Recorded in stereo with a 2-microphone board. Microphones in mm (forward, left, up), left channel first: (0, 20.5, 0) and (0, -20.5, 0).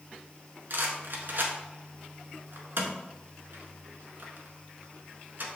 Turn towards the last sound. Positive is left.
turn(degrees=-60)  # may be behind; listen again after turning